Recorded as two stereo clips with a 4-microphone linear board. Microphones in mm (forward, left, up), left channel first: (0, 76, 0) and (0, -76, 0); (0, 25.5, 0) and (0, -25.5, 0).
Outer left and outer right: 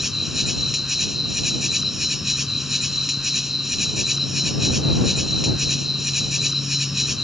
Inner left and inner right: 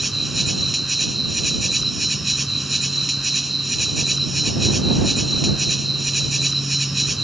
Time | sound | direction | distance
0.0 | an insect | centre (ahead or behind) | ?